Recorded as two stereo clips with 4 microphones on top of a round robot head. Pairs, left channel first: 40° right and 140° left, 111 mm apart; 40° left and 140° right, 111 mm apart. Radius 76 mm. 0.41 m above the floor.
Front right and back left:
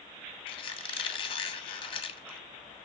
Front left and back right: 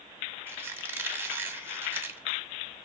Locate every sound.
0.5 s a squeak: 70° right, 0.9 m